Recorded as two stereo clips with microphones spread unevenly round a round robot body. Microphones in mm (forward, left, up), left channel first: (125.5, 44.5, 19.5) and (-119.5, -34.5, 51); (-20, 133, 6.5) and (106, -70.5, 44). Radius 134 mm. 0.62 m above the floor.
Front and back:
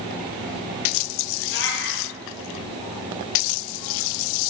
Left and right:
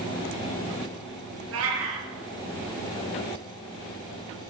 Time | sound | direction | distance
1.5 | a cat meowing | 30° right | 4.5 m